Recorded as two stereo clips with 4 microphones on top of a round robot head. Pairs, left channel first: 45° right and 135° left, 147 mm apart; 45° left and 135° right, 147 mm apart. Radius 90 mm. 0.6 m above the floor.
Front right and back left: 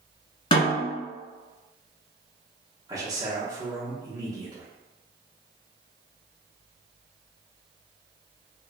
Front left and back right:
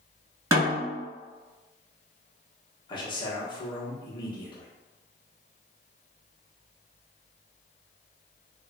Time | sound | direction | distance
0.5 | a snare drum | 80° right | 1.4 m
2.9 | a man speaking | 85° left | 0.8 m